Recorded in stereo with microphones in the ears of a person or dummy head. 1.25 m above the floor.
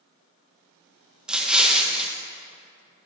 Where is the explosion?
Centre (ahead or behind), 0.9 m.